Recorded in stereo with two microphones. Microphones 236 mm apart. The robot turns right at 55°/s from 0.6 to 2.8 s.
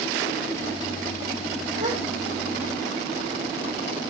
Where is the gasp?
30° right (ahead or behind), 1.4 m.